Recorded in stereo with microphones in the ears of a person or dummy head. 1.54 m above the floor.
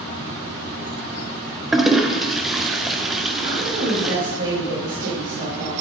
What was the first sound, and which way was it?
A toilet flushing, 5° right (ahead or behind).